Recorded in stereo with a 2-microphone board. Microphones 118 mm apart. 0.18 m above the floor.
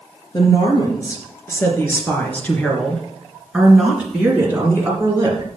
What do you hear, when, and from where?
0.3 s a woman speaking: 35° left (ahead or behind), 3.5 m; by 5.5 s 30° right (ahead or behind), 3 m